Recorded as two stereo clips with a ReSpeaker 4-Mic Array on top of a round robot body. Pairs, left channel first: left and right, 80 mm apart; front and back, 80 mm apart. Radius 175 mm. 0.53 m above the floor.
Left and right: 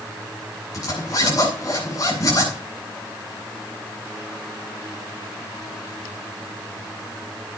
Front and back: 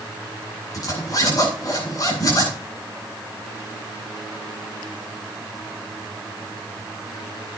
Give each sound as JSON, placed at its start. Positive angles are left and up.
{"t": 0.7, "sound": "a zipper", "azimuth_deg": 45, "distance_m": 8.0}